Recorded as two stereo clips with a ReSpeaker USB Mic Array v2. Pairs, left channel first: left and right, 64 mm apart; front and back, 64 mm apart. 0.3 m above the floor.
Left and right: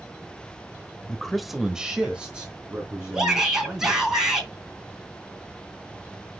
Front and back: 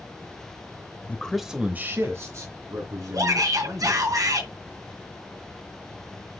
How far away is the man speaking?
About 1.0 m.